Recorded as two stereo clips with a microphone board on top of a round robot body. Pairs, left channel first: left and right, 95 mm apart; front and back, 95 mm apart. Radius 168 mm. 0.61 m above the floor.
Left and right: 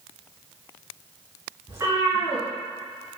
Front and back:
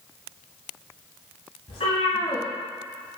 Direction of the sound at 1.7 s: 25° right.